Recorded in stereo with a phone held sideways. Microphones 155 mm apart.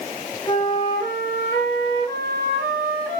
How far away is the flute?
About 1.3 m.